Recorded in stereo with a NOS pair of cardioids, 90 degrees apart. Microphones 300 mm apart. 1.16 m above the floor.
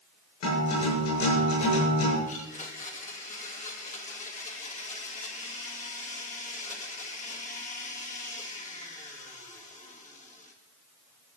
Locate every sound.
0.4 s a guitar: 65° left, 7 m
2.3 s a blender: 25° left, 2 m